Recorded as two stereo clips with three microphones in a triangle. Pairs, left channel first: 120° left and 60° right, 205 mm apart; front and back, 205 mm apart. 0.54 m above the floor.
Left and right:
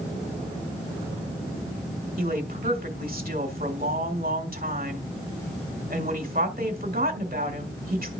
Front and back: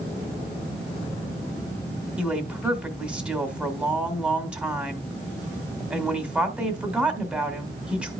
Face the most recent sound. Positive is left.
turn(degrees=-95)